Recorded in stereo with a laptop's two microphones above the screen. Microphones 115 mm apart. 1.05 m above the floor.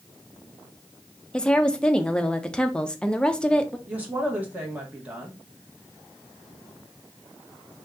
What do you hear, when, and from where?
1.3 s a woman speaking: 10° left (ahead or behind), 0.5 m
3.9 s a woman speaking: 15° right (ahead or behind), 1.1 m